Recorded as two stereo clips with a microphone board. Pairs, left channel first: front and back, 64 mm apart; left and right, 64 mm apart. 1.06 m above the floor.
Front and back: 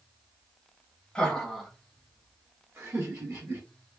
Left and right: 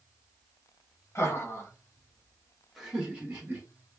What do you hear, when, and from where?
1.1 s laughter: 75° left, 1.1 m; by 3.6 s 150° right, 1.3 m